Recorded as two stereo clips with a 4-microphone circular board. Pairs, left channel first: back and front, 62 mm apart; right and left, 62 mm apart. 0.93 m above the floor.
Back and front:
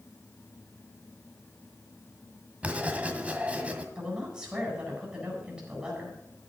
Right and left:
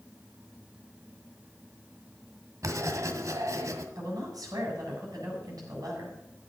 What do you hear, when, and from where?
2.6 s writing: 65° left, 1.7 m
4.0 s a woman speaking: 80° left, 7.5 m